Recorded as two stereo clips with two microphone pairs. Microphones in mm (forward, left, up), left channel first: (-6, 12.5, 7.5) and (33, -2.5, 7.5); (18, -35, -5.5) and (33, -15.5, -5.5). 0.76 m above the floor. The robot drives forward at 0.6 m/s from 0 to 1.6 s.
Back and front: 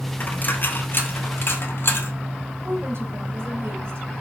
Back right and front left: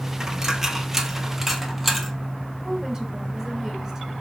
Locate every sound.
0.2 s a dropped coin: 120° left, 1.6 m; by 2.1 s 140° left, 2 m
2.6 s a woman speaking: 10° right, 4 m